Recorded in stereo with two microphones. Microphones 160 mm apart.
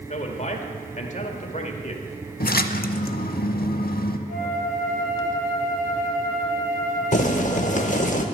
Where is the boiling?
50° left (ahead or behind), 0.8 m.